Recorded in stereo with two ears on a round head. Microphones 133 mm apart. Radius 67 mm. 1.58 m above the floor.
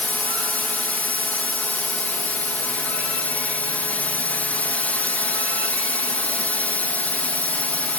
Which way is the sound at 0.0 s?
10° left (ahead or behind).